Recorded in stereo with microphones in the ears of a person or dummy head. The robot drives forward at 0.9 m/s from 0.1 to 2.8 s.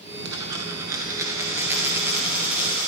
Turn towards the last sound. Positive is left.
turn(degrees=-5)  # may be behind; listen again after turning